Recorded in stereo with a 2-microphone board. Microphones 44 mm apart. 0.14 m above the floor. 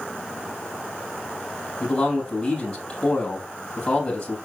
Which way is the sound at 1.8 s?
15° left (ahead or behind).